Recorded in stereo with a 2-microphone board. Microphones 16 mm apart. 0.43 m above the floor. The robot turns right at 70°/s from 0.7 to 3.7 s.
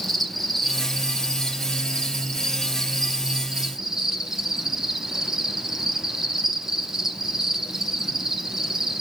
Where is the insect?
10° left, 1.1 m; by 9.0 s 140° right, 1.1 m.